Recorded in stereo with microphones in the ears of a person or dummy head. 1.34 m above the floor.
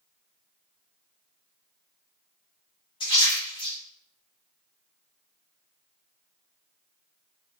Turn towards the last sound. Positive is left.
turn(degrees=20)  # may be behind; listen again after turning